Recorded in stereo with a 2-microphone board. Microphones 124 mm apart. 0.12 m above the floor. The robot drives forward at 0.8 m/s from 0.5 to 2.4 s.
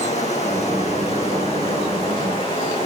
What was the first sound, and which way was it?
Running water, 65° left (ahead or behind).